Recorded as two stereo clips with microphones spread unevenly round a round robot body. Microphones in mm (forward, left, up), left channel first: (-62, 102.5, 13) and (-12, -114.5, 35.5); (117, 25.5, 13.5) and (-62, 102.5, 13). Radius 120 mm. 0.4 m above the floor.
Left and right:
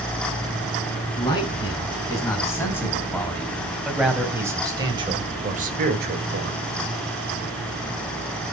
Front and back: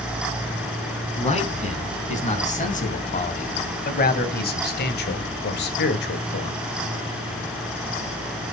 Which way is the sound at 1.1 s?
30° left.